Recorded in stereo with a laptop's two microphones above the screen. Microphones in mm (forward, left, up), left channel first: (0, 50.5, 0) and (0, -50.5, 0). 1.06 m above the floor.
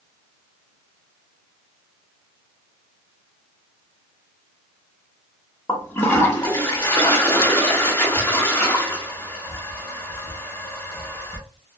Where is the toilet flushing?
25° left (ahead or behind), 1.0 m.